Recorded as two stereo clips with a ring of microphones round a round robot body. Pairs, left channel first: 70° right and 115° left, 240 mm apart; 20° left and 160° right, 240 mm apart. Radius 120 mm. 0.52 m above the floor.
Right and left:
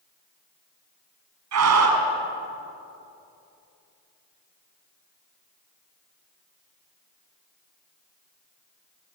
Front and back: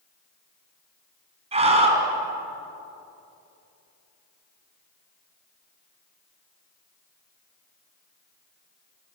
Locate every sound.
1.5 s a scream: 135° left, 4.5 m